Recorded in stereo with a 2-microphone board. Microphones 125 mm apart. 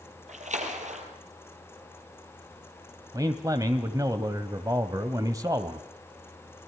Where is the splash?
75° right (ahead or behind), 3.5 m.